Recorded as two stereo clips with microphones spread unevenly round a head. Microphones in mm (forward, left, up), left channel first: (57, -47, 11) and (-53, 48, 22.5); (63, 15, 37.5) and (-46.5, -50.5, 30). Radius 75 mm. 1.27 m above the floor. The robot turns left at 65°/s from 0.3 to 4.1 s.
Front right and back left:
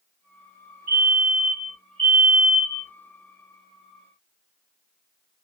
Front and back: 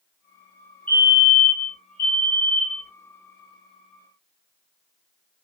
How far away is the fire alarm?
About 2 m.